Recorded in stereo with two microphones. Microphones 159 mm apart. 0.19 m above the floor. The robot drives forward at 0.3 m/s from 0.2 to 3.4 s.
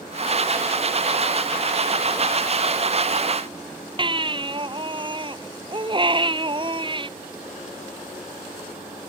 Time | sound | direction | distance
4.0 | a baby crying | 30° right (ahead or behind) | ?